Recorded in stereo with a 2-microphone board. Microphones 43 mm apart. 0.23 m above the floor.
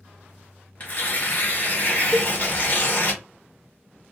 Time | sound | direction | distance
0.8 | tearing paper | 35° left (ahead or behind) | 1.0 m
2.1 | a cowbell | 35° right (ahead or behind) | 0.5 m